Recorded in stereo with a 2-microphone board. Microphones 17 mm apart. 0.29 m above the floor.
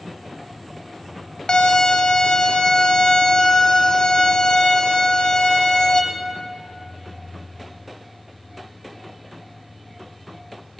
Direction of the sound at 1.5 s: 55° left (ahead or behind).